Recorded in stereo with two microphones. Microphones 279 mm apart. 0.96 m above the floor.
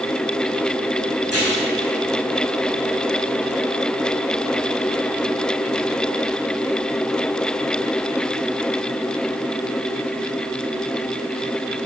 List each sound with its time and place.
1.2 s tearing paper: 60° right (ahead or behind), 6.5 m